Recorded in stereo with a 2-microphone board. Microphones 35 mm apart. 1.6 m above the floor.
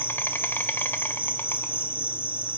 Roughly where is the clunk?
No clunk in this recording.